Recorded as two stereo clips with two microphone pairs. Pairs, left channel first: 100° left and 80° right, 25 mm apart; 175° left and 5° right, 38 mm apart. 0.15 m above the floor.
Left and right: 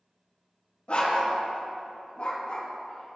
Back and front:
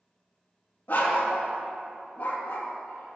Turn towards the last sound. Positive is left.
turn(degrees=150)